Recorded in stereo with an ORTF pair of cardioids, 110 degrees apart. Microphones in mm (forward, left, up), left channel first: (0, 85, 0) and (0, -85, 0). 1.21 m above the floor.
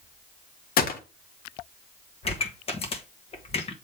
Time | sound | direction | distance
0.8 | a gunshot | 55° left | 1.3 m
2.2 | a pop | 35° left | 1.5 m